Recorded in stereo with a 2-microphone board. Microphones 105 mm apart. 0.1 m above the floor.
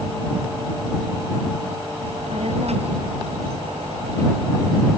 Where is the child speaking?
85° right; by 4.9 s 80° right.